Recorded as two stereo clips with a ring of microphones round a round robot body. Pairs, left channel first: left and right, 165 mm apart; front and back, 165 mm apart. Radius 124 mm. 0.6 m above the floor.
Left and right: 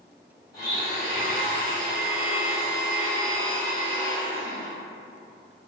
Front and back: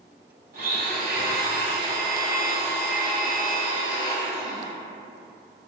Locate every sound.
0.5 s a blender: 155° left, 1.4 m